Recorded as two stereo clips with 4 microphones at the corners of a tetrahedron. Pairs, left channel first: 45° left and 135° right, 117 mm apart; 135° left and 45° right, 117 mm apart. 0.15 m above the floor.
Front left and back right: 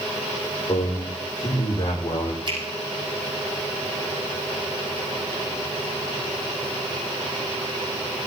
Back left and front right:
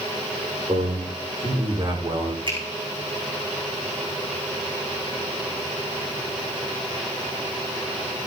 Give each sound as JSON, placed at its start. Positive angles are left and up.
{"t": 0.7, "sound": "a man speaking", "azimuth_deg": 0, "distance_m": 8.0}
{"t": 2.5, "sound": "a finger snap", "azimuth_deg": -90, "distance_m": 5.5}